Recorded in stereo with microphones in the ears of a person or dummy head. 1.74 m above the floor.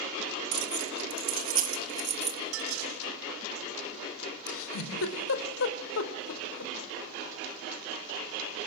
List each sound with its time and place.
0.5 s keys jangling: 60° right (ahead or behind), 2.0 m; by 2.4 s 35° right (ahead or behind), 2.5 m
2.5 s dishes clattering: 75° right (ahead or behind), 4 m
4.5 s a giggle: 75° left (ahead or behind), 4 m